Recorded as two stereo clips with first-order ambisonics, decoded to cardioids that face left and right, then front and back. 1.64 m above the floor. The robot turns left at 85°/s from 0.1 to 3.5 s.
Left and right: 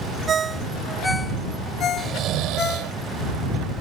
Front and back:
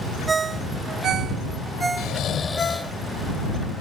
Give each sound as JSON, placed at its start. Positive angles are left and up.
{"t": 0.3, "sound": "a ringtone", "azimuth_deg": -115}
{"t": 2.0, "sound": "snoring", "azimuth_deg": -25}